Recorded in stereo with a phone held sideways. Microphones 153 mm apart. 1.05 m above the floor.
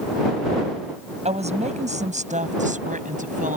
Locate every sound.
1.2 s a woman speaking: 45° right (ahead or behind); by 3.6 s 60° right (ahead or behind)